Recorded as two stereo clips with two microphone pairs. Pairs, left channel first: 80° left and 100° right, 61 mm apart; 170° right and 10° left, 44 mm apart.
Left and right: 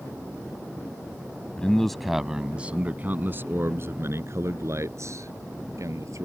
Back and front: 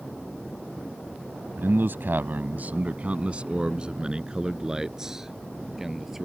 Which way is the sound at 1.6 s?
5° left.